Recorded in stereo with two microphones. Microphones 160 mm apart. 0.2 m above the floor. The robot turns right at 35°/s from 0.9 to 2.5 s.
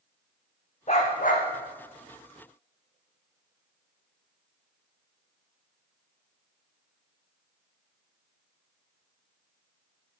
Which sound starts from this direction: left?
A dog barking, at 0.9 s.